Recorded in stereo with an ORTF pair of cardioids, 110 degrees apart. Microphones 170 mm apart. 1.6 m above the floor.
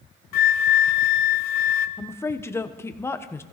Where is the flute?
65° left, 1.1 m.